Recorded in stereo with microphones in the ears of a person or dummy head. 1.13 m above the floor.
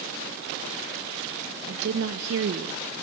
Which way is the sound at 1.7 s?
55° right (ahead or behind).